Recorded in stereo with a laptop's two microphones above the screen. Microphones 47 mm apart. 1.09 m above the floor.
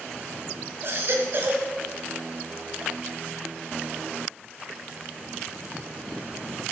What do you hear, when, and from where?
0.8 s a baby crying: 55° right (ahead or behind), 2 m